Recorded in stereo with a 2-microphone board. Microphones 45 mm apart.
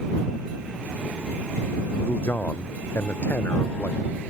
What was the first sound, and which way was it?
A man speaking, 55° left (ahead or behind).